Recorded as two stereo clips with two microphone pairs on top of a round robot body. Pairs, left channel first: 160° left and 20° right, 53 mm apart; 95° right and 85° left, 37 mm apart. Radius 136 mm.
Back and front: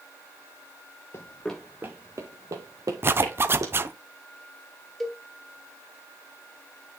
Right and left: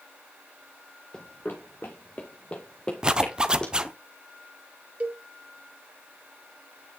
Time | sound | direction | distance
1.1 | running footsteps | 155° right | 0.5 m
3.0 | a zipper | 25° left | 0.7 m
5.0 | a cowbell | 80° left | 1.8 m